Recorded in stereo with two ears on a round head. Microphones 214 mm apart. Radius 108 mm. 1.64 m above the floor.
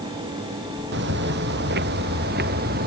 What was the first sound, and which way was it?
Footsteps, 45° right (ahead or behind).